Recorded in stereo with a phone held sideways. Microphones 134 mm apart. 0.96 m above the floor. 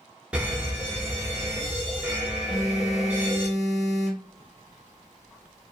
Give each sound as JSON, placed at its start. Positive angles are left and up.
{"t": 0.3, "sound": "an alarm", "side_deg": -10, "distance_m": 0.8}
{"t": 2.5, "sound": "a phone buzzing", "side_deg": 0, "distance_m": 1.0}